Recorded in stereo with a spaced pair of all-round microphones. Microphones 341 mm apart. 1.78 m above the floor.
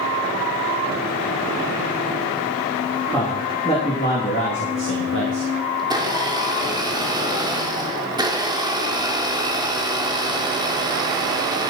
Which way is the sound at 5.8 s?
10° right (ahead or behind).